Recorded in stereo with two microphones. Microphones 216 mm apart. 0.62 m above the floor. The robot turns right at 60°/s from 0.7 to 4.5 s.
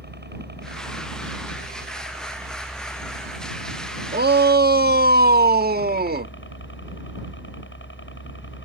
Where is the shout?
45° right (ahead or behind).